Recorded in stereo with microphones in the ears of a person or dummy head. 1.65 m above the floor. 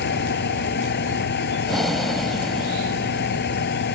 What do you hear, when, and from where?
0.0 s a fan: 55° left (ahead or behind)
1.6 s breathing: centre (ahead or behind)